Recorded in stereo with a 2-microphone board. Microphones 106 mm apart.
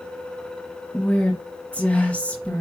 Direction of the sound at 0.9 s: 10° left (ahead or behind).